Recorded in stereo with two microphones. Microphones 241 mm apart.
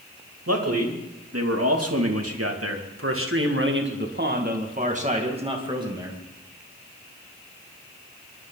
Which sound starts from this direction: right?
A man speaking, at 0.5 s.